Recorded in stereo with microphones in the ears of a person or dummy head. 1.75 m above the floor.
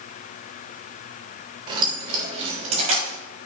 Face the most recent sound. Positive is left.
turn(degrees=-45)  # may be behind; listen again after turning